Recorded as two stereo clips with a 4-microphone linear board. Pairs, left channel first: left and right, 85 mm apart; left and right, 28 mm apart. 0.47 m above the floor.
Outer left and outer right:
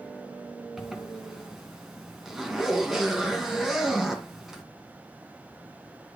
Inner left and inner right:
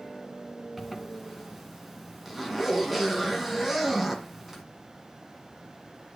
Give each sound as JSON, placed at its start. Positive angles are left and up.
{"t": 0.8, "sound": "a zipper", "side_deg": -5, "distance_m": 2.0}